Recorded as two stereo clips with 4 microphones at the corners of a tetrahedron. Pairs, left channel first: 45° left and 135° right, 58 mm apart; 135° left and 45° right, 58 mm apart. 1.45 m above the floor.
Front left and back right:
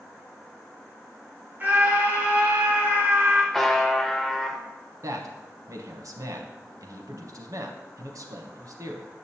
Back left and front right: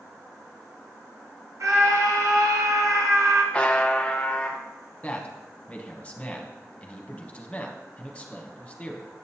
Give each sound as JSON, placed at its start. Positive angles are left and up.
{"t": 1.6, "sound": "a scream", "azimuth_deg": -75, "distance_m": 1.2}
{"t": 3.5, "sound": "a buzzer", "azimuth_deg": 115, "distance_m": 0.6}
{"t": 5.0, "sound": "a man speaking", "azimuth_deg": -155, "distance_m": 0.9}